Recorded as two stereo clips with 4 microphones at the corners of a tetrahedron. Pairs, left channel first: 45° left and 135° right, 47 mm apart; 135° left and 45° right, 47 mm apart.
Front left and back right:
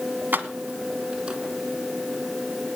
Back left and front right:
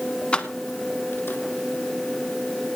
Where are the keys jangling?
165° right, 1.3 m; by 1.4 s 155° left, 2.0 m.